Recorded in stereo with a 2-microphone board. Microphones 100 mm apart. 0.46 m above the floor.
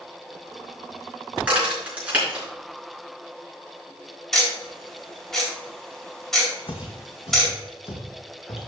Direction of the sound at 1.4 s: 15° right (ahead or behind).